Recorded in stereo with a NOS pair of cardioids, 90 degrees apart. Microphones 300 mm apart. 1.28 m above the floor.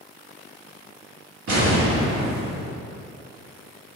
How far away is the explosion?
About 1.5 m.